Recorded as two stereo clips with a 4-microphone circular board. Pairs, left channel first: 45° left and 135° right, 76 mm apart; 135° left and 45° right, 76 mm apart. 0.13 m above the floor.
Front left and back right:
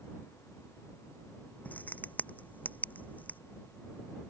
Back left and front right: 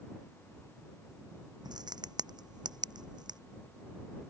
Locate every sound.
1.6 s a crack: 25° right